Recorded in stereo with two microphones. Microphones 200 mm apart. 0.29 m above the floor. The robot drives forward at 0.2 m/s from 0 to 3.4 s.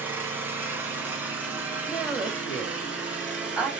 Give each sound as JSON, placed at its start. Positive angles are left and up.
{"t": 0.0, "sound": "an engine running", "side_deg": -10, "distance_m": 1.0}
{"t": 1.9, "sound": "a woman speaking", "side_deg": -5, "distance_m": 1.2}